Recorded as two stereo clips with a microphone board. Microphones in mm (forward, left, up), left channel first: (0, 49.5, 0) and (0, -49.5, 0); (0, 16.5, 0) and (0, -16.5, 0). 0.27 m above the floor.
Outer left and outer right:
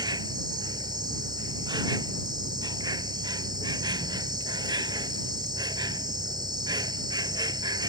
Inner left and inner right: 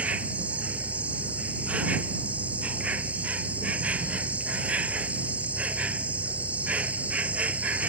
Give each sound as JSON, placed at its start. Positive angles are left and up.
{"t": 0.0, "sound": "an insect", "side_deg": -45}